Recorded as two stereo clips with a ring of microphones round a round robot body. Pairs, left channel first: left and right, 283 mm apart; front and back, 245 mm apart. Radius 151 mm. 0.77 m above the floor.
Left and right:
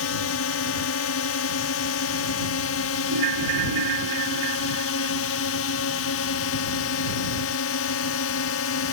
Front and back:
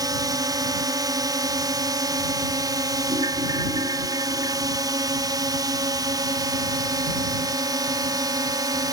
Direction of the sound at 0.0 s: 110° left.